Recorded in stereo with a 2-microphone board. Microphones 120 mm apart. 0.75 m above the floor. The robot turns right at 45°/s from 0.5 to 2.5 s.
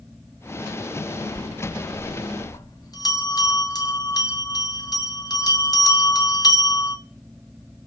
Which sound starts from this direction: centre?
A bell, at 1.3 s.